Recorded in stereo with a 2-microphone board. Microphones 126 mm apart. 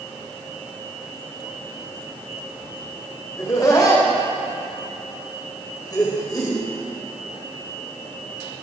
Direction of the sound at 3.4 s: 30° left (ahead or behind).